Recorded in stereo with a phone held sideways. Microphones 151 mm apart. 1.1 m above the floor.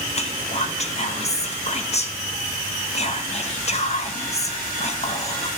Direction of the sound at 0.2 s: 45° left (ahead or behind).